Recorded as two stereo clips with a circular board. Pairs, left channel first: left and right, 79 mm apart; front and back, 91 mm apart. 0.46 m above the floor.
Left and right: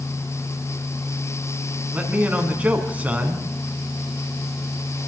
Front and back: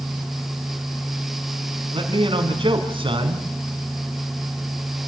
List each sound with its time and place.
1.9 s a man speaking: 160° right, 4.5 m